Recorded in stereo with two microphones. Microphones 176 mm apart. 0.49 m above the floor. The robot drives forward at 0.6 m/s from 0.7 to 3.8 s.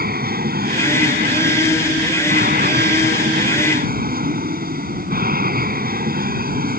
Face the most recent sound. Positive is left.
turn(degrees=-60)  # may be behind; listen again after turning